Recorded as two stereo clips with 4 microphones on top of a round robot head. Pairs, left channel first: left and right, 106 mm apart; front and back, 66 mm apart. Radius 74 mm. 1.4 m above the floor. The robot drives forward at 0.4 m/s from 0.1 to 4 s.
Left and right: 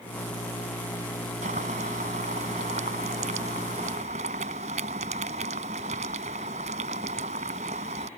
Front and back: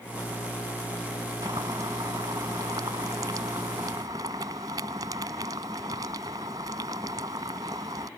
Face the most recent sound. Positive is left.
turn(degrees=-125)